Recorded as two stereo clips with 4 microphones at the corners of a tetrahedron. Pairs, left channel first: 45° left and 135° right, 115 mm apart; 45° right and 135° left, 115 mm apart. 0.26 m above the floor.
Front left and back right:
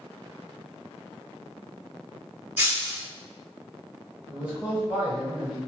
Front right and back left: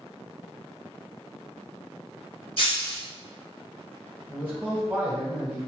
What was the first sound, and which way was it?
Breaking glass, 65° right.